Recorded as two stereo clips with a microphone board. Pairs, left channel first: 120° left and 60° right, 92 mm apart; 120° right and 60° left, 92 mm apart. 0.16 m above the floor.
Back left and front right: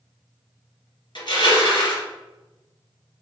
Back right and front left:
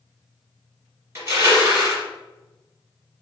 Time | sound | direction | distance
1.1 | crushing | 120° left | 1.9 m